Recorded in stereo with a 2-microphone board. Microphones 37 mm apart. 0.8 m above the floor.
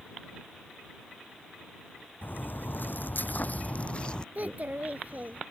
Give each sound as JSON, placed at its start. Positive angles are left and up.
{"t": 2.2, "sound": "footsteps", "side_deg": 55}
{"t": 4.3, "sound": "a child speaking", "side_deg": -40}